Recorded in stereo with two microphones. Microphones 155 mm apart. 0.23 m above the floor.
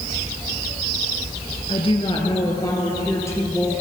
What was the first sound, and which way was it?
A woman speaking, 35° left (ahead or behind).